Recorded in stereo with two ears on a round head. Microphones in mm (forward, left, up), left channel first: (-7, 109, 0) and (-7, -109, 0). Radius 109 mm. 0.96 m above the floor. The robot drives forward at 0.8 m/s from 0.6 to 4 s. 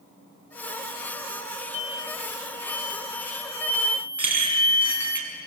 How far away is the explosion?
About 0.6 m.